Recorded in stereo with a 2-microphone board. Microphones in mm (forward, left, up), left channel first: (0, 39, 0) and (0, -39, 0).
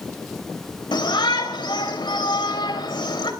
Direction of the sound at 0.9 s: 75° left (ahead or behind).